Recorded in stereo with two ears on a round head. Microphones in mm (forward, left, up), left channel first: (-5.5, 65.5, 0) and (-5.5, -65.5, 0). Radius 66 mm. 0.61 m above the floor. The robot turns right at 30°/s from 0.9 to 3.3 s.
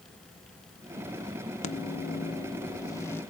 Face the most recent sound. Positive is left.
turn(degrees=165)